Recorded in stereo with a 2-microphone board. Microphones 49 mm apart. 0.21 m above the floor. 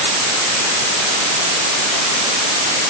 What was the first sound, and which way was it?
Only background noise.